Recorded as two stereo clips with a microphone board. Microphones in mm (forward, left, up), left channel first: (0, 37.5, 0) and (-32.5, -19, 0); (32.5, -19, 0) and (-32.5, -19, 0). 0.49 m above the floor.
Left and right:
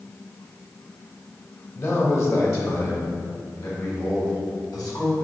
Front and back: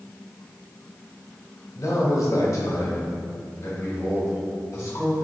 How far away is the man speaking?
About 2 m.